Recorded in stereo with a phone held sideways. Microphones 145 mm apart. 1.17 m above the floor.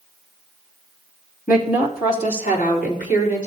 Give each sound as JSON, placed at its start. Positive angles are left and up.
{"t": 1.5, "sound": "a woman speaking", "side_deg": 85, "distance_m": 2.5}